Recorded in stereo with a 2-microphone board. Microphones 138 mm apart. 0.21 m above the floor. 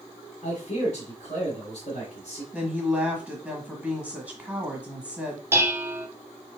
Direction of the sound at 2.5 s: 10° right (ahead or behind).